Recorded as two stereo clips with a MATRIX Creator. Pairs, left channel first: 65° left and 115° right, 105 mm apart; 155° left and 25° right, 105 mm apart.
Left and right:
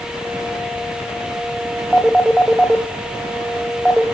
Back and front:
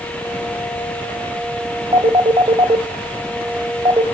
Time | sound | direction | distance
1.9 | a phone ringing | 25° right | 1.6 m